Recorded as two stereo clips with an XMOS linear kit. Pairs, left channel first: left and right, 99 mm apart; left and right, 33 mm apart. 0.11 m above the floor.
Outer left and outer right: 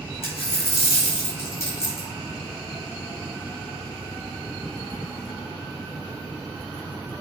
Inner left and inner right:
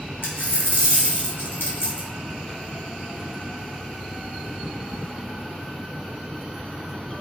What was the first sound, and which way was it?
A dropped coin, 85° left.